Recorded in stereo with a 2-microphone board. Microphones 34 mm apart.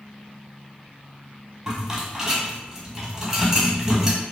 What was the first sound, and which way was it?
A rattle, 20° right (ahead or behind).